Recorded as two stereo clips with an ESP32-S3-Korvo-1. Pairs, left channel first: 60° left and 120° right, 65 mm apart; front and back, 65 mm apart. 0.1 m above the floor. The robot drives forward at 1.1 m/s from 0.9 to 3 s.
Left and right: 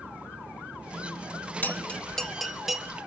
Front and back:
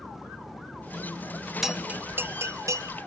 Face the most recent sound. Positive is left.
turn(degrees=160)